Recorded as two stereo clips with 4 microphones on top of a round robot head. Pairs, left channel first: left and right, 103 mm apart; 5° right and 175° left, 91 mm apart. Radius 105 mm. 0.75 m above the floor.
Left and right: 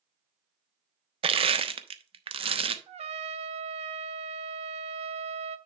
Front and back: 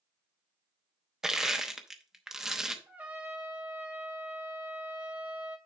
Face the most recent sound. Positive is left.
turn(degrees=-110)